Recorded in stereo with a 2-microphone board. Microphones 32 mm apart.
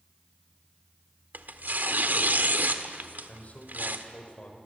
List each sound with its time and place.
1.3 s tearing paper: 65° right (ahead or behind), 1.6 m
3.3 s a man speaking: 50° left (ahead or behind), 4.5 m